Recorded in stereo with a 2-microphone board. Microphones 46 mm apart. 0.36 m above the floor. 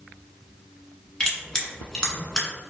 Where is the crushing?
15° left (ahead or behind), 0.8 m.